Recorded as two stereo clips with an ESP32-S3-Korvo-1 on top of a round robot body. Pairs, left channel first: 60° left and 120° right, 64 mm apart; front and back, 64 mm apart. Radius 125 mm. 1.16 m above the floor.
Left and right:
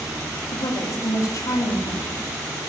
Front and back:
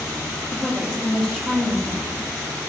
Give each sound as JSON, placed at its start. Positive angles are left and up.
{"t": 0.5, "sound": "a woman speaking", "azimuth_deg": 80, "distance_m": 2.5}